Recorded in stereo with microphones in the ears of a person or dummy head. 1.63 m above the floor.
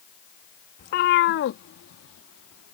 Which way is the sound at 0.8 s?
45° left (ahead or behind).